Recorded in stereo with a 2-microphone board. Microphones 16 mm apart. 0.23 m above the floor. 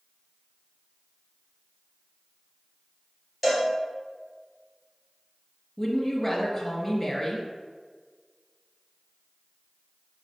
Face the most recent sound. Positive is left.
turn(degrees=10)  # may be behind; listen again after turning